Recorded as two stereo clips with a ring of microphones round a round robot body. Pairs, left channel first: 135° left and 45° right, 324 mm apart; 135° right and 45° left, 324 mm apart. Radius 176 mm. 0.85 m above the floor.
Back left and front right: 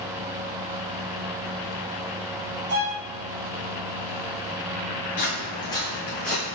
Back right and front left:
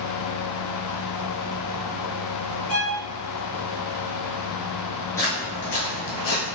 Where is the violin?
90° right, 1.9 m.